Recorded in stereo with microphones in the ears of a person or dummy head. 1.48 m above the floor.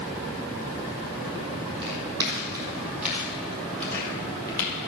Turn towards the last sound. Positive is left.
turn(degrees=25)  # may be behind; listen again after turning